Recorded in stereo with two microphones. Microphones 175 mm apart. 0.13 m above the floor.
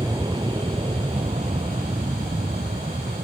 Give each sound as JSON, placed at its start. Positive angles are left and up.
{"t": 0.0, "sound": "an aircraft", "side_deg": -20}